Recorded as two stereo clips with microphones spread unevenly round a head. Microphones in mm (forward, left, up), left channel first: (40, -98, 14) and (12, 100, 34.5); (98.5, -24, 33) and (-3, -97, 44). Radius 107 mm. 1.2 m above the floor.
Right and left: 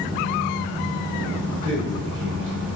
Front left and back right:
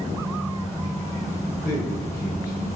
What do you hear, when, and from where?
0.0 s a fan: 95° left, 2.0 m
1.6 s a man speaking: 70° left, 2.5 m